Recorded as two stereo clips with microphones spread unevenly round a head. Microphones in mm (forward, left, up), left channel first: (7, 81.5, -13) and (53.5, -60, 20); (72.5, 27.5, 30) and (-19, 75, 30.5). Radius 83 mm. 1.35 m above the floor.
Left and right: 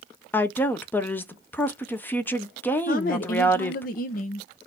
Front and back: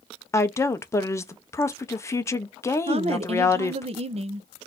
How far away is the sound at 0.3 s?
About 0.7 m.